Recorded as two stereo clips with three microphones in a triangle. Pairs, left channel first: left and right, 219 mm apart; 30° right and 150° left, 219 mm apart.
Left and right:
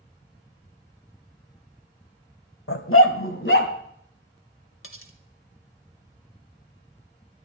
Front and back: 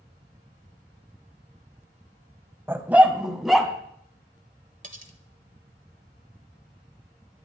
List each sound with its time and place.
2.7 s a dog barking: 70° left, 0.9 m; by 3.7 s 60° left, 1.5 m
4.8 s cutlery clinking: 100° left, 1.4 m